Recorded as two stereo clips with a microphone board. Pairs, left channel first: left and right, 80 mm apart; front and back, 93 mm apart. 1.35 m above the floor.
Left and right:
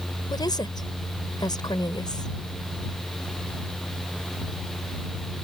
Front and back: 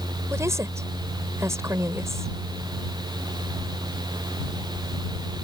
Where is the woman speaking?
120° left.